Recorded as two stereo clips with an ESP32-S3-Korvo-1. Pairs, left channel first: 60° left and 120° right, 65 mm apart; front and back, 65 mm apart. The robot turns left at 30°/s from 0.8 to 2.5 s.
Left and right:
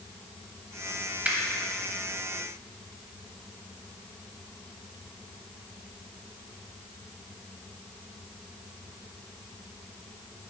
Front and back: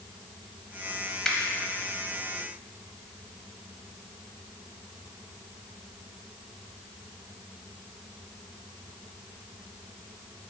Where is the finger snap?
75° right, 0.9 m.